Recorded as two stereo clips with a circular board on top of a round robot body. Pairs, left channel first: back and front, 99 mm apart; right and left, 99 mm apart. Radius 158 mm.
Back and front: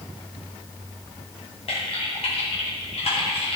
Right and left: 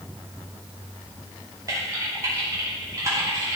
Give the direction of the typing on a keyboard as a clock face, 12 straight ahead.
7 o'clock.